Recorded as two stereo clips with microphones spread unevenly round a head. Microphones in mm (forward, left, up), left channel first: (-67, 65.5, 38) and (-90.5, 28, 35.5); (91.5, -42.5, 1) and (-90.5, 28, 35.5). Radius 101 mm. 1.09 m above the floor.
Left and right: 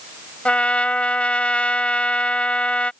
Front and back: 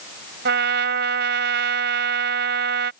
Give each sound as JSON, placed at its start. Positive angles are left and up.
{"t": 0.5, "sound": "a trumpet", "azimuth_deg": 120}